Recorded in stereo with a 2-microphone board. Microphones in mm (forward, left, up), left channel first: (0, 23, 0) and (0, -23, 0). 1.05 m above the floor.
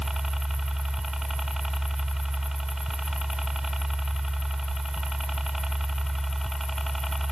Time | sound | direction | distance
0.0 | a helicopter | 10° right (ahead or behind) | ?